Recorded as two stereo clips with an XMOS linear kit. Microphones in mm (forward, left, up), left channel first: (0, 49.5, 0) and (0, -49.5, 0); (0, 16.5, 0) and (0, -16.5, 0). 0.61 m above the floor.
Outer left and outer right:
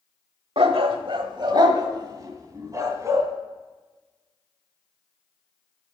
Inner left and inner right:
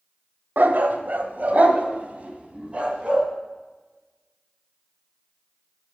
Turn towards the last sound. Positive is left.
turn(degrees=-30)  # may be behind; listen again after turning